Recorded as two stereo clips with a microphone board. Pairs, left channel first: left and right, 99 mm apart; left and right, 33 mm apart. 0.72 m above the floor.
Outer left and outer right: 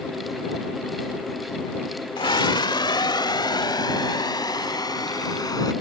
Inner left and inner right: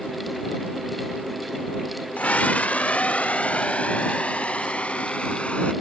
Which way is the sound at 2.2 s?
60° left (ahead or behind).